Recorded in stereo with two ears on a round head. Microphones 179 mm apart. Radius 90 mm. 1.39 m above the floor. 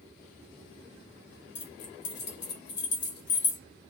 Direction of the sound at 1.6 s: 55° left (ahead or behind).